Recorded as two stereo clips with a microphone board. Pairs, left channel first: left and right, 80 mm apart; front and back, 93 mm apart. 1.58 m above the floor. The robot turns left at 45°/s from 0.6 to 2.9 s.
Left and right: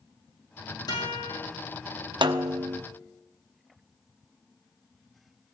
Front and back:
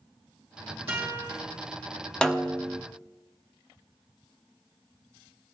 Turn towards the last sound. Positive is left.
turn(degrees=-115)